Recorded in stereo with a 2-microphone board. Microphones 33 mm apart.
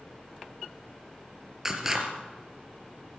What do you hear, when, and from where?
1.6 s scissors: 15° right (ahead or behind), 3.5 m